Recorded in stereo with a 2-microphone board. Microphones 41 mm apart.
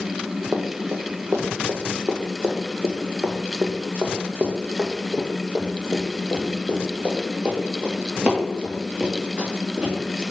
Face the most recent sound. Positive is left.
turn(degrees=-15)  # may be behind; listen again after turning